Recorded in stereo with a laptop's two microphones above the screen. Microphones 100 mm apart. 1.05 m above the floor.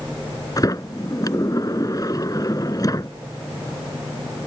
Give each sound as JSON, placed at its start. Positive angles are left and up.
{"t": 0.6, "sound": "a sliding door", "side_deg": 40}